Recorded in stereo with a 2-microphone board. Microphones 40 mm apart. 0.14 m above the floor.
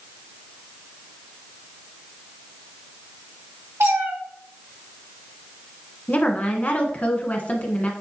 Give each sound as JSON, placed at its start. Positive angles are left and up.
{"t": 3.8, "sound": "a cat meowing", "side_deg": -65, "distance_m": 4.0}
{"t": 6.1, "sound": "a woman speaking", "side_deg": 30, "distance_m": 1.2}